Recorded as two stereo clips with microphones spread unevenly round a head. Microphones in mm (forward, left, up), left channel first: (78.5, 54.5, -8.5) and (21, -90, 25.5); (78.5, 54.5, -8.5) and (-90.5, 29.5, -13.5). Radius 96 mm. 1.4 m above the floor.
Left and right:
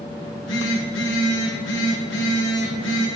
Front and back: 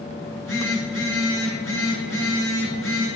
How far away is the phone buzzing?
About 5 m.